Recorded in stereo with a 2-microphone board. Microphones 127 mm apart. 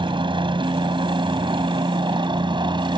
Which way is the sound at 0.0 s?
40° right (ahead or behind).